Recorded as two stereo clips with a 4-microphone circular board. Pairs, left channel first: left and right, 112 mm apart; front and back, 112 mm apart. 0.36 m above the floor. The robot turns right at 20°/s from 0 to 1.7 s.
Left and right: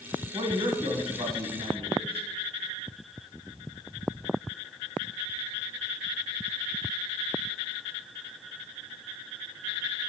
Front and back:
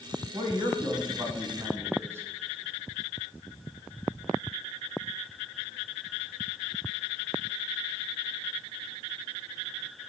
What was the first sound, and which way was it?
A man speaking, 140° right.